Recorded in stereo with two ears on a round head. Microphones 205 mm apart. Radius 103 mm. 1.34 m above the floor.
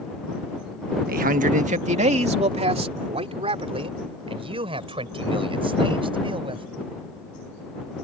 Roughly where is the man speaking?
Right.